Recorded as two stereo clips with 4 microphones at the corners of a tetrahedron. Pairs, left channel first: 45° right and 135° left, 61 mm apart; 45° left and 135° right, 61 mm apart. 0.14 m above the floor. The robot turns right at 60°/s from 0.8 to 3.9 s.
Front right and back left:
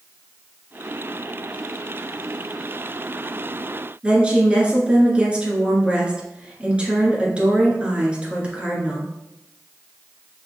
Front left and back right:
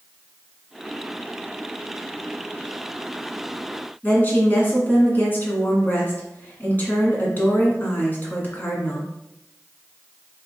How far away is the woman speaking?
About 1.4 m.